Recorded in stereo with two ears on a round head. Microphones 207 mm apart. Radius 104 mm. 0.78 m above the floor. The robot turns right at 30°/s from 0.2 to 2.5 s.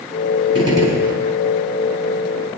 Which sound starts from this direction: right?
A gunshot, at 0.6 s.